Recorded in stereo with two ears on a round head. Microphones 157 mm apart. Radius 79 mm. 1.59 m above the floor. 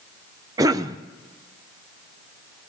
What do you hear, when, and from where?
0.6 s a cough: 20° right (ahead or behind), 0.7 m